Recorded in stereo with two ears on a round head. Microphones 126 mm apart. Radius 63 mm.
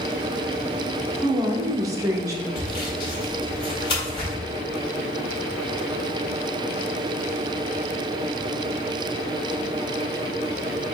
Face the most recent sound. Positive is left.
turn(degrees=35)  # may be behind; listen again after turning